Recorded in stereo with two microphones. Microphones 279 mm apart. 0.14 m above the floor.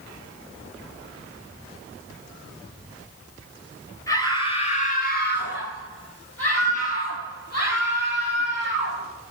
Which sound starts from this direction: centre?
A scream, at 4.1 s.